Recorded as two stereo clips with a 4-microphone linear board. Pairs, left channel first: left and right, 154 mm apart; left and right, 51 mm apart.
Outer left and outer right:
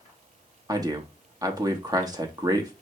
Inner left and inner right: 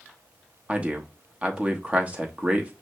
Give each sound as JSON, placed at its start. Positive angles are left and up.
{"t": 0.7, "sound": "a man speaking", "side_deg": -25, "distance_m": 0.9}